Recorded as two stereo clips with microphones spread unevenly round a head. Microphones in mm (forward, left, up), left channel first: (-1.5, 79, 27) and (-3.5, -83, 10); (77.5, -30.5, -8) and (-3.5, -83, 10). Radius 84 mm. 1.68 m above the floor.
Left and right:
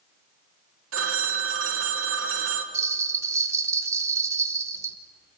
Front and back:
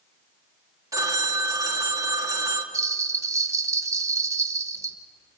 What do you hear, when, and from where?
0.9 s a phone ringing: 100° right, 2.5 m
2.7 s a bell: 165° right, 0.9 m